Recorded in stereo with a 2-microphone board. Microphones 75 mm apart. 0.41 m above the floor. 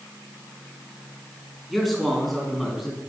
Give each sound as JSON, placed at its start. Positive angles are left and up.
{"t": 1.7, "sound": "a man speaking", "side_deg": 0, "distance_m": 3.5}